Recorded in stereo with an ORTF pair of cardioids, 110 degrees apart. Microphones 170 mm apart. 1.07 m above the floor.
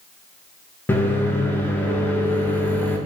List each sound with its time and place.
0.9 s a microwave: 10° left, 0.5 m